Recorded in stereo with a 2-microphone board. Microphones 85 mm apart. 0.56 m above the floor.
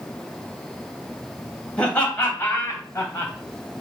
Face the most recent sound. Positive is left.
turn(degrees=35)  # may be behind; listen again after turning